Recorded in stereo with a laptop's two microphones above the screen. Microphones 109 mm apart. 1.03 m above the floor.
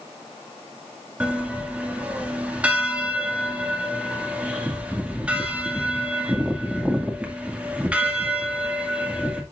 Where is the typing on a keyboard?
I don't hear typing on a keyboard.